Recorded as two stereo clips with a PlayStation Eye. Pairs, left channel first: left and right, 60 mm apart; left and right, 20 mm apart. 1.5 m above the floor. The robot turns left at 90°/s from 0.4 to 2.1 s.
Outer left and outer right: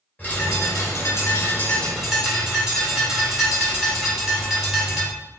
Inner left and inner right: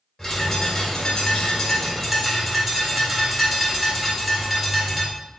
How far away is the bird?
About 2 m.